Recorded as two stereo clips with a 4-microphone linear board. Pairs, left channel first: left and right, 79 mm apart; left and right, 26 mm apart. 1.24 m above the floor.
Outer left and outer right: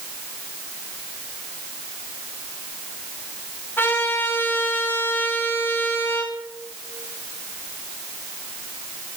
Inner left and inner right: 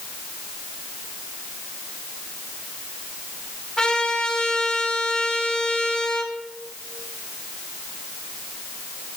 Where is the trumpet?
25° left (ahead or behind), 10 m.